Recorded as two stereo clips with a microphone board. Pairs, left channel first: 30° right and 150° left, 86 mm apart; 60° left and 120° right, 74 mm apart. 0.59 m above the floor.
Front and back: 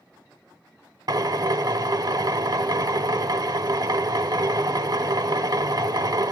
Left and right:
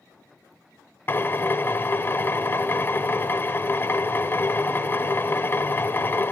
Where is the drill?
115° left, 1.0 m.